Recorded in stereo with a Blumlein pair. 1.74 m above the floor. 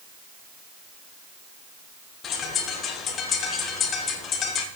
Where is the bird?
25° left, 1.9 m.